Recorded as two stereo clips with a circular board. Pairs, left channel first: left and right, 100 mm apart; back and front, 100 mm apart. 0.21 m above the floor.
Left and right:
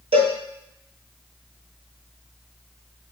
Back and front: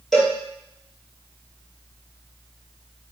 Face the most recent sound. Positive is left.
turn(degrees=-95)